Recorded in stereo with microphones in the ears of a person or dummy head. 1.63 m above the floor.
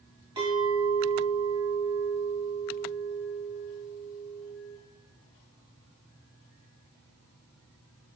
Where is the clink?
20° right (ahead or behind), 1.1 m.